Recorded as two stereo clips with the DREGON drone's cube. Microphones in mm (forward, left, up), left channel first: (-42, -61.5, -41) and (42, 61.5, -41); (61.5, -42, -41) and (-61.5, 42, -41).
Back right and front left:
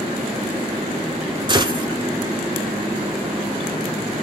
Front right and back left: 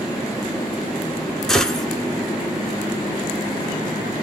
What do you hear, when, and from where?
1.5 s a gunshot: 50° left, 0.6 m